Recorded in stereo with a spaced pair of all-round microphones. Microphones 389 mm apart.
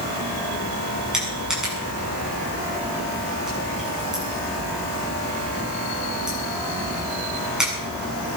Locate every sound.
1.1 s crushing: centre (ahead or behind), 8 m